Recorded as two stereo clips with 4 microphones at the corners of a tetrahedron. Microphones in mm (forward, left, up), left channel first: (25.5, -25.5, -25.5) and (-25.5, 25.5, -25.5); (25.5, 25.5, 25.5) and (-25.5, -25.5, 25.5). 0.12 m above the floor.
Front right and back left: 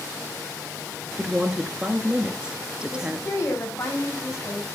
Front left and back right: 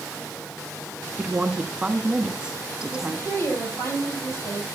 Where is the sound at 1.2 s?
175° left, 1.1 m.